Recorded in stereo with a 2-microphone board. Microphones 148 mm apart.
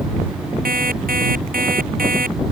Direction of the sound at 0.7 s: 75° right (ahead or behind).